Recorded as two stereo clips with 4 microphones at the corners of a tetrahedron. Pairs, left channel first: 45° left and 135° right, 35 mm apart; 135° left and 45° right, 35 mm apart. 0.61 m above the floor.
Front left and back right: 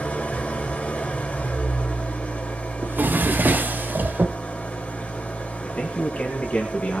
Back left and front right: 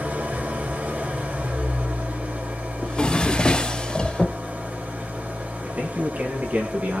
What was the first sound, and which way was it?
An engine running, 5° right.